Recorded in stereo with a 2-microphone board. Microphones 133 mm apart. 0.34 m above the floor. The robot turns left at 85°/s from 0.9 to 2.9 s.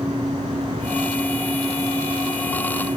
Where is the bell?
No bell in this recording.